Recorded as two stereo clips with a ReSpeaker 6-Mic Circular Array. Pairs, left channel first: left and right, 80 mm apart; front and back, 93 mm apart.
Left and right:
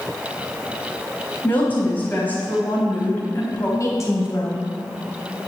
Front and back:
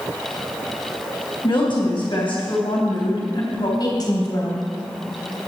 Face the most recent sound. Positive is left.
turn(degrees=45)